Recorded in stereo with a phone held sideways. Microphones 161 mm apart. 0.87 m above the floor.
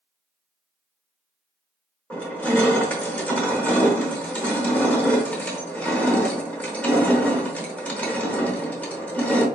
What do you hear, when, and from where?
2.1 s crushing: 10° left (ahead or behind), 0.9 m